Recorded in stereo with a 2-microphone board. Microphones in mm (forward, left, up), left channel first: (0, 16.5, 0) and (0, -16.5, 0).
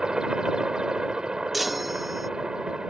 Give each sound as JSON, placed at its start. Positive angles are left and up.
{"t": 0.0, "sound": "a helicopter", "side_deg": -25}
{"t": 1.5, "sound": "a chime", "side_deg": -5}